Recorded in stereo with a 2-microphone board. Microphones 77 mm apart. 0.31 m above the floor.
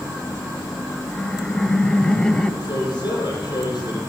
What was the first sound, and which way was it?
Laughter, 10° left (ahead or behind).